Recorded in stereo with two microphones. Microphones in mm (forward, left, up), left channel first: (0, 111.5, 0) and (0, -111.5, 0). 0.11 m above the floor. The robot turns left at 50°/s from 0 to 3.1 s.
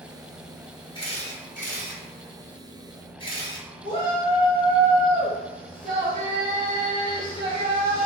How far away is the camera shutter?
About 1.4 m.